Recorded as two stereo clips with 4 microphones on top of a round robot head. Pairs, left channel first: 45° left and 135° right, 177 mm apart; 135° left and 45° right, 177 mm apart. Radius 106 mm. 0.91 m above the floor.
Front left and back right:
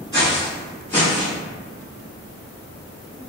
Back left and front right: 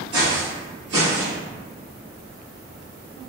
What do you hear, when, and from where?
0.1 s footsteps: 65° right, 1.5 m; by 1.4 s 15° right, 1.5 m